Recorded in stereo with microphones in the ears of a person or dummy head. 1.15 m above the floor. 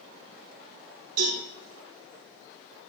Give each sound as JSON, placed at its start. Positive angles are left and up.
{"t": 1.2, "sound": "a cowbell", "side_deg": -75, "distance_m": 6.5}